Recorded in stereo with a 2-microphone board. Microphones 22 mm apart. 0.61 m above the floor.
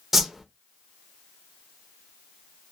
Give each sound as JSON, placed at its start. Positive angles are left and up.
{"t": 0.1, "sound": "a whoosh", "side_deg": -15, "distance_m": 0.5}